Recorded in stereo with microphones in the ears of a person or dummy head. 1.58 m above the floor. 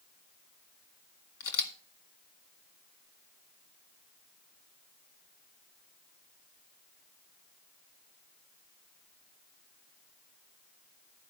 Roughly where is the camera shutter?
Left.